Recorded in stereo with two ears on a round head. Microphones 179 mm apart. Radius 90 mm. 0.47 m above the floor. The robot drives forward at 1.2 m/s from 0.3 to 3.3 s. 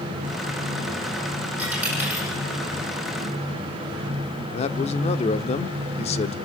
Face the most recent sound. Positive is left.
turn(degrees=30)  # may be behind; listen again after turning